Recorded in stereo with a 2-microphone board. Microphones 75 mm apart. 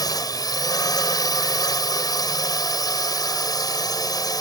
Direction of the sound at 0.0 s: 60° left (ahead or behind).